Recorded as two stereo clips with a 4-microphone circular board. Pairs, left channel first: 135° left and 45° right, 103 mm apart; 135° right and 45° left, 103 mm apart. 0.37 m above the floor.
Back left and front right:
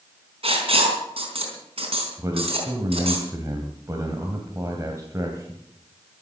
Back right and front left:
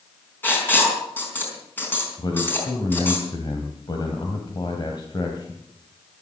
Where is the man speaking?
100° right, 2.5 m.